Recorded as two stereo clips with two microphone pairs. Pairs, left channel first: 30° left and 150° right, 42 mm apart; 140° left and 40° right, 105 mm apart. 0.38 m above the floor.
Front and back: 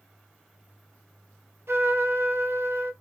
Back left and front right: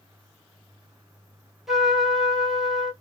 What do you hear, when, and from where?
1.7 s a trumpet: 130° right, 1.3 m